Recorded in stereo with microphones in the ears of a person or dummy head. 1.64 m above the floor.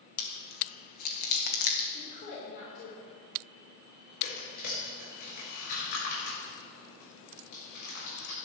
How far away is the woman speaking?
About 4.5 m.